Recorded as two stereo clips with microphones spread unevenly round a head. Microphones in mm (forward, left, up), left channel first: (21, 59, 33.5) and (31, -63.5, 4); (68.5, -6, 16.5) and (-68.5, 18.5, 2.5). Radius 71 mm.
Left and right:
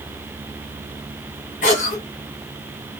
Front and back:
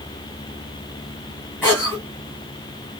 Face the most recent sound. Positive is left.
turn(degrees=70)